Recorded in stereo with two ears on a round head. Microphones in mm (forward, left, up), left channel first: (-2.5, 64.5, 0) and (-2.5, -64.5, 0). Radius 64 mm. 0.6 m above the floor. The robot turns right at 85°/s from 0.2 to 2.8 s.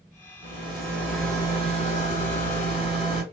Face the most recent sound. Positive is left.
turn(degrees=135)